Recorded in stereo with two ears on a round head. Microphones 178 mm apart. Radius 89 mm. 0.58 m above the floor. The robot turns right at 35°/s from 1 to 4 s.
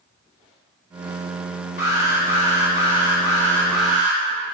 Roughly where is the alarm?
Left.